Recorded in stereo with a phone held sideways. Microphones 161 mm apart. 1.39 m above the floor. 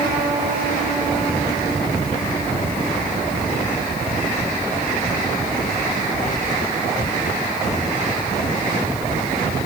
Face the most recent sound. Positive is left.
No sound to turn to.